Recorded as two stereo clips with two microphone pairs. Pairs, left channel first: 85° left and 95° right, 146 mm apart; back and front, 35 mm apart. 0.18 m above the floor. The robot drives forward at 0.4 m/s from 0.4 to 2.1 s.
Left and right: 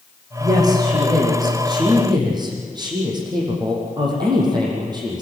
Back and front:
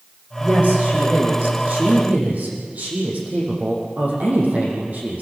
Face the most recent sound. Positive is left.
turn(degrees=-35)